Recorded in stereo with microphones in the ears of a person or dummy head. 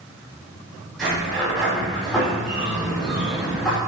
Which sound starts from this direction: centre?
A sliding door, at 1.0 s.